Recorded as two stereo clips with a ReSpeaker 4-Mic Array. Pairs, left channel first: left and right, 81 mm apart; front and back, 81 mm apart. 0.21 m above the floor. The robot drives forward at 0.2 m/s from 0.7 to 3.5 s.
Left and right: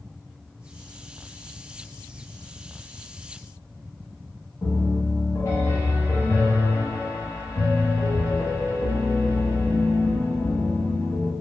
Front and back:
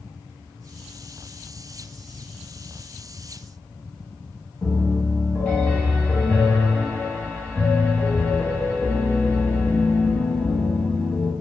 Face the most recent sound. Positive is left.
turn(degrees=65)